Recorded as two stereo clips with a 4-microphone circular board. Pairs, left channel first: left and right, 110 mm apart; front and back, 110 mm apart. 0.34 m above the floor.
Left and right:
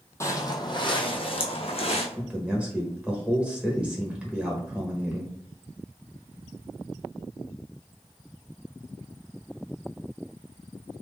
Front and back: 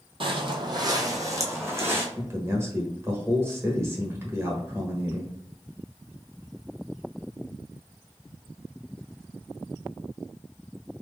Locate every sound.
0.2 s footsteps: 150° left, 0.7 m; by 2.1 s 110° left, 1.4 m
2.2 s a man speaking: 155° right, 1.1 m